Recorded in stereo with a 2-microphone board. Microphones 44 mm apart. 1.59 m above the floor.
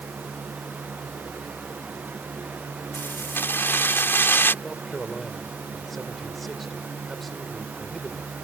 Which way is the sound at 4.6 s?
5° left (ahead or behind).